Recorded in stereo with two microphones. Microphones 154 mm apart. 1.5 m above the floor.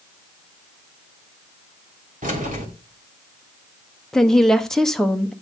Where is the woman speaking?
5° left (ahead or behind), 1.0 m.